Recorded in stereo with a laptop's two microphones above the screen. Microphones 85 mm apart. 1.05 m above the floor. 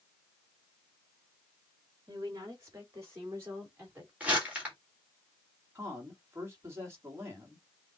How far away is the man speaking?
About 1.8 m.